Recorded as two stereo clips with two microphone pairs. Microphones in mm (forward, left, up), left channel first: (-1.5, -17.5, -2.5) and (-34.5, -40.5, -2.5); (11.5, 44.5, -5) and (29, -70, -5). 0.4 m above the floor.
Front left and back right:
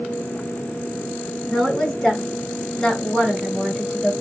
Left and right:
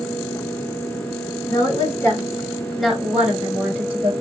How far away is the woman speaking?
About 1.3 m.